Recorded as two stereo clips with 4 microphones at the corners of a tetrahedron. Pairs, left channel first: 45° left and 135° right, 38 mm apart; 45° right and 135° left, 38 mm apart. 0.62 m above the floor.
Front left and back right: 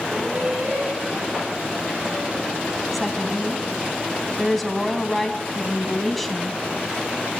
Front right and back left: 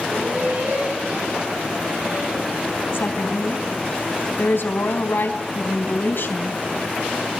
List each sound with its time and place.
0.1 s laughter: 155° left, 9.5 m; by 2.5 s 150° left, 8 m
2.9 s a woman speaking: 40° right, 4 m